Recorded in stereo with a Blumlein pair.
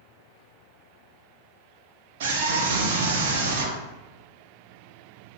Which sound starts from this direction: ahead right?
A scream, at 2.2 s.